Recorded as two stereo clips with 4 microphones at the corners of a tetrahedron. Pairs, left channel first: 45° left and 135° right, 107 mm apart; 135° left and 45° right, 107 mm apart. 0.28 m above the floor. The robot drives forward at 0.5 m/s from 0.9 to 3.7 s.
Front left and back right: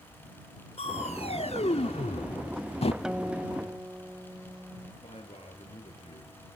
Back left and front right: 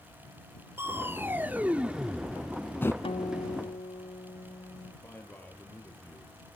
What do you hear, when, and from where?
0.8 s crushing: 25° left, 1.3 m; by 2.9 s 70° left, 0.5 m
3.0 s a guitar: 145° left, 0.6 m; by 4.9 s 155° left, 0.9 m
5.0 s a man speaking: 60° left, 6.5 m